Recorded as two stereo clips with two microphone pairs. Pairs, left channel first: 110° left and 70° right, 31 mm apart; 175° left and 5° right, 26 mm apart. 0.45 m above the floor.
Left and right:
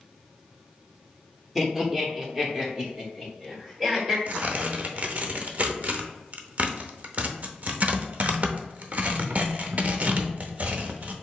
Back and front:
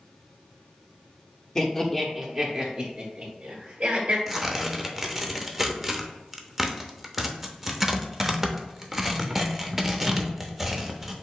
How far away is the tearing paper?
About 0.6 m.